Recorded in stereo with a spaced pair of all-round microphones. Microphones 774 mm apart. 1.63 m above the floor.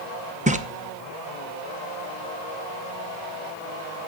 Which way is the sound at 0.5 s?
10° right (ahead or behind).